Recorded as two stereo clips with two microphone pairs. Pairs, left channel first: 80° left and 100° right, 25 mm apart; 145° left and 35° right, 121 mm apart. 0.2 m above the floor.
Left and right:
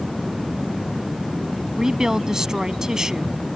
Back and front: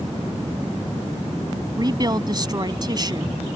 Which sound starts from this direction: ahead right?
A woman speaking, at 1.8 s.